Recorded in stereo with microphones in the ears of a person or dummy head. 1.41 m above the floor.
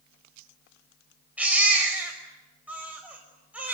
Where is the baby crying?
10° right (ahead or behind), 5.5 m.